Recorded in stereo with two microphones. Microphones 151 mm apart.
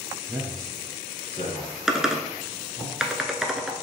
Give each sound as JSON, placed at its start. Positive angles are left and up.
{"t": 0.3, "sound": "a man speaking", "side_deg": -15, "distance_m": 1.2}
{"t": 1.9, "sound": "typing on a keyboard", "side_deg": -5, "distance_m": 0.6}